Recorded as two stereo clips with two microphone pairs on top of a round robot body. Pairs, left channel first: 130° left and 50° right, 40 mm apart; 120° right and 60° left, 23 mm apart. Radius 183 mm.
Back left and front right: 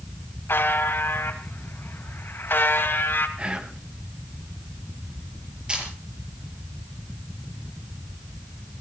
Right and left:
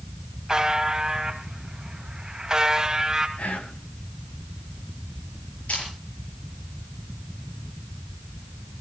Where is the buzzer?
125° left, 3 m.